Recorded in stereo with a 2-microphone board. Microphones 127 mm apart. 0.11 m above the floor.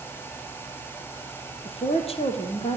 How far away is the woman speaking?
About 3.5 m.